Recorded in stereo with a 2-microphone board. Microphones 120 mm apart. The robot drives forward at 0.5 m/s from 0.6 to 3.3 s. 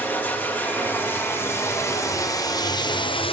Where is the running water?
15° left (ahead or behind), 1.9 m; by 3.3 s 50° left (ahead or behind), 0.7 m.